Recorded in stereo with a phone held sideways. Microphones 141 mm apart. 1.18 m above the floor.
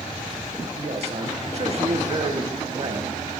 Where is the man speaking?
45° right (ahead or behind), 1.1 m.